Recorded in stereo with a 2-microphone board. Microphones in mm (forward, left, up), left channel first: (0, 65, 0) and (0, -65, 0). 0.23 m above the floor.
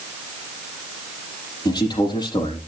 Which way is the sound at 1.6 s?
30° left (ahead or behind).